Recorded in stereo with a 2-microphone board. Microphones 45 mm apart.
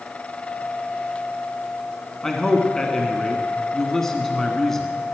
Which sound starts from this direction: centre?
A man speaking, at 2.2 s.